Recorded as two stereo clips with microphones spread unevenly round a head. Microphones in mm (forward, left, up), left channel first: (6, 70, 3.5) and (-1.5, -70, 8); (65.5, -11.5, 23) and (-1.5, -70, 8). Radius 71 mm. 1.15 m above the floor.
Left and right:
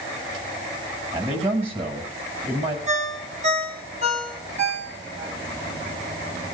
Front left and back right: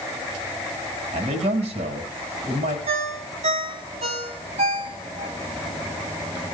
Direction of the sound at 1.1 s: 150° right.